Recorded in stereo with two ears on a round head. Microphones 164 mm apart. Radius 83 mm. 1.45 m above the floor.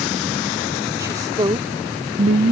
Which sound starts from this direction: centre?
A woman speaking, at 1.0 s.